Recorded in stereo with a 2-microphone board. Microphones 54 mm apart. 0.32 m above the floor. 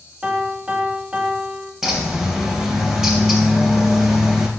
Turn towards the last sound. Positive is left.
turn(degrees=-5)  # may be behind; listen again after turning